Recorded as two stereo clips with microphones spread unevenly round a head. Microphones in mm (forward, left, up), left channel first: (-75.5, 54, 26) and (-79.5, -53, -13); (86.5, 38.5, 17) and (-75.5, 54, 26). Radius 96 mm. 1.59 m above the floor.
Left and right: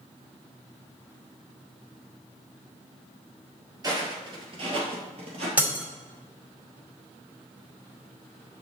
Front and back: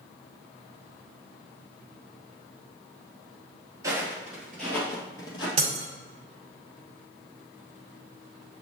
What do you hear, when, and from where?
3.8 s footsteps: 145° right, 1.7 m; by 5.5 s 60° right, 1.9 m
5.6 s breaking glass: 175° left, 1.7 m